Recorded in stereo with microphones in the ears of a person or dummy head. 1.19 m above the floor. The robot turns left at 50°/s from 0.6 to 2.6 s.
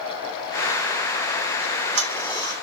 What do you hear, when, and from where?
1.6 s ticking: 80° right, 3.5 m; by 2.5 s 55° right (ahead or behind), 3.5 m